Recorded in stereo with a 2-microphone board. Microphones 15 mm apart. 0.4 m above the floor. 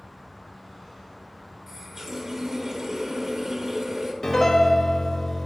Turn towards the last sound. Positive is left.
turn(degrees=45)  # may be behind; listen again after turning